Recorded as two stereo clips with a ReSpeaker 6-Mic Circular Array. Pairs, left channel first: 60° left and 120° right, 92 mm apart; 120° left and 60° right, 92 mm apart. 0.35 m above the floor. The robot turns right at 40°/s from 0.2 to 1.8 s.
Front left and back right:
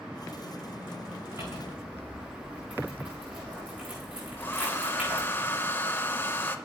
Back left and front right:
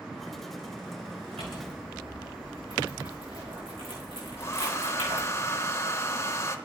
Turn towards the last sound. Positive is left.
turn(degrees=105)